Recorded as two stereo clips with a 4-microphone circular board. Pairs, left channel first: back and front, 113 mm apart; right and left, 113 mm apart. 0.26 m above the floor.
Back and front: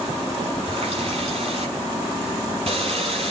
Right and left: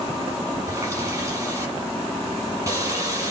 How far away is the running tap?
About 5 m.